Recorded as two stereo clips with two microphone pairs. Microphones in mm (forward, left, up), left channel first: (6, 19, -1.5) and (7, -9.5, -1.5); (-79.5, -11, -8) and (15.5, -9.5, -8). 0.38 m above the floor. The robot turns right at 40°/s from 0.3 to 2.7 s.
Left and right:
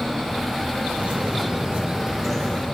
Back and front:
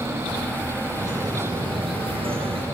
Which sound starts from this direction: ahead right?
A bird, at 0.9 s.